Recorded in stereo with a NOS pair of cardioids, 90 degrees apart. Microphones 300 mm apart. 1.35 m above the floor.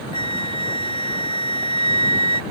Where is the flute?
15° left.